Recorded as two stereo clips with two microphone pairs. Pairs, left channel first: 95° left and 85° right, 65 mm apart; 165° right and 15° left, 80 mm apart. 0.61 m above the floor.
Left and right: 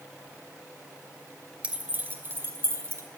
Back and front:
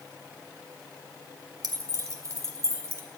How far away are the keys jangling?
About 1.3 m.